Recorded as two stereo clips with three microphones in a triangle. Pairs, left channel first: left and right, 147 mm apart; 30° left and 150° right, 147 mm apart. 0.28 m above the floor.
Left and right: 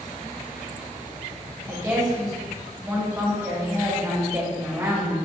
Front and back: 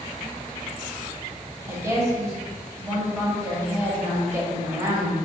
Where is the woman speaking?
115° right, 1.2 m.